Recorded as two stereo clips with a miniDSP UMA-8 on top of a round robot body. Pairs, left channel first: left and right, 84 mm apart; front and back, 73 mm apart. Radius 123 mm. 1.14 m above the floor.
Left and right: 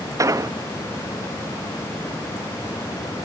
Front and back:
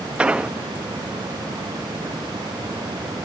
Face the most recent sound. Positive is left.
turn(degrees=-110)